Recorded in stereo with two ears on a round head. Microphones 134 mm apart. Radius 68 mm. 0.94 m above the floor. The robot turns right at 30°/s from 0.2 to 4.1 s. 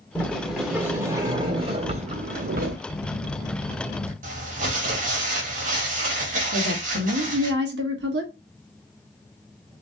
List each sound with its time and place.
0.1 s a sliding door: 170° left, 1.5 m; by 2.8 s 115° right, 1.5 m
2.9 s a phone buzzing: 160° left, 1.5 m; by 4.1 s 165° right, 1.5 m
4.2 s crumpling: 50° right (ahead or behind), 1.7 m
6.5 s a woman speaking: 80° right, 1.3 m